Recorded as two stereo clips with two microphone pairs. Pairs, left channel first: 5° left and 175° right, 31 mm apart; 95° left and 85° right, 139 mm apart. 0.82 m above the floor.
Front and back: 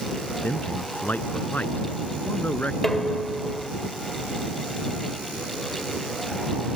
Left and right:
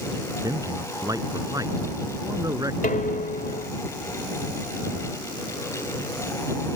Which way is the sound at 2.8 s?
85° left.